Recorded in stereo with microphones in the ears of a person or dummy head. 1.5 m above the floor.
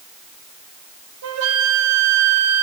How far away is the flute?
About 1.1 m.